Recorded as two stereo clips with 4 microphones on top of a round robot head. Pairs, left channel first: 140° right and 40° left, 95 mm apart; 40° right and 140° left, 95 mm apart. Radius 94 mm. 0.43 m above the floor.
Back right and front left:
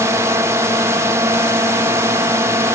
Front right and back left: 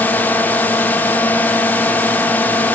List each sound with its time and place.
0.0 s a drone: 15° left